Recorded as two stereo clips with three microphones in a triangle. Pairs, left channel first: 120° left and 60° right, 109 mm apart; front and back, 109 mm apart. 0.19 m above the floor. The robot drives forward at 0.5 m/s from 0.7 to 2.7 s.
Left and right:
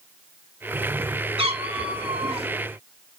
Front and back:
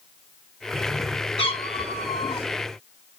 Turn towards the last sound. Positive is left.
turn(degrees=-40)